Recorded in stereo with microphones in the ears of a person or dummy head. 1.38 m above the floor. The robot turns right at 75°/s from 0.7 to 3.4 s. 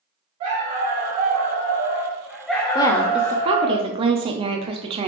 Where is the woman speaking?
155° left, 0.6 m; by 5.1 s 155° right, 0.6 m.